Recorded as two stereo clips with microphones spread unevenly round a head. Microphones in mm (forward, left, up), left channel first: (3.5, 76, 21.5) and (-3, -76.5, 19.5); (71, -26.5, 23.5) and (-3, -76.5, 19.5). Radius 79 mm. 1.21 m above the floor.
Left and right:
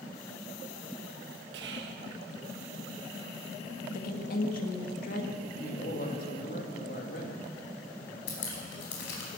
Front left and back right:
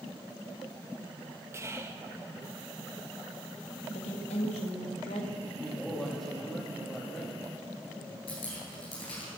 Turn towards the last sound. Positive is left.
turn(degrees=90)